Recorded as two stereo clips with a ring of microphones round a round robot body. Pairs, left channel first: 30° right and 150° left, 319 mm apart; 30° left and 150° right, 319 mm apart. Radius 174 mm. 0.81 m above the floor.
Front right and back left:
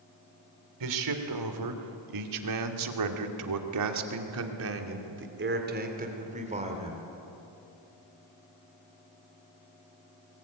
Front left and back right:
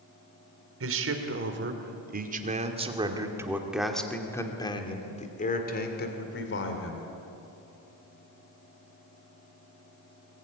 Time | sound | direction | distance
0.8 | a man speaking | 165° left | 3 m